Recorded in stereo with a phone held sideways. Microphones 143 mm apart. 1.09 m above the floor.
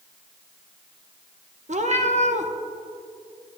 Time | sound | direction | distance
1.7 | a cat meowing | 55° right (ahead or behind) | 0.6 m